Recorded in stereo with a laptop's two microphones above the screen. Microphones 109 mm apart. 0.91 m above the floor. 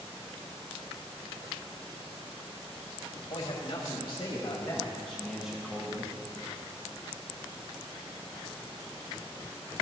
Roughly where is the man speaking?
Left.